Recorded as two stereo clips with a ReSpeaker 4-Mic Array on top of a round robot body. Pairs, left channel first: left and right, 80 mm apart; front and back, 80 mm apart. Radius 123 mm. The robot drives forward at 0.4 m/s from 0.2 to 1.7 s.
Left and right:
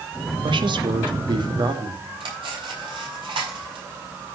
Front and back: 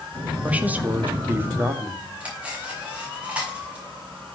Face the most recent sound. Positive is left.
turn(degrees=-105)